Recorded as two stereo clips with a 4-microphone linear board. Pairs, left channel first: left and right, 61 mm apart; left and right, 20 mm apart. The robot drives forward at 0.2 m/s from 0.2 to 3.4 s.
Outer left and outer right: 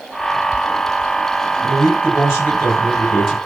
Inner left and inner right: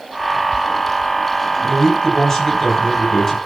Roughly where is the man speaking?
Left.